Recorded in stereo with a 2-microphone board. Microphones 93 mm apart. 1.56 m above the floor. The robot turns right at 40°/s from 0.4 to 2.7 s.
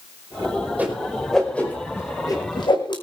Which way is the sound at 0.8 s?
15° right (ahead or behind).